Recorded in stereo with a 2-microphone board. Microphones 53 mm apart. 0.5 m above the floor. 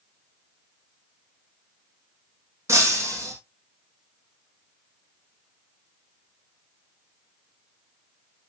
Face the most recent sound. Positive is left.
turn(degrees=-65)  # may be behind; listen again after turning